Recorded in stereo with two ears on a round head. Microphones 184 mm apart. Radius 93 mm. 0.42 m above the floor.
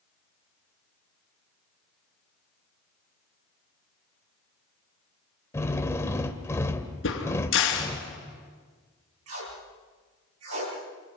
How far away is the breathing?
No breathing in this recording.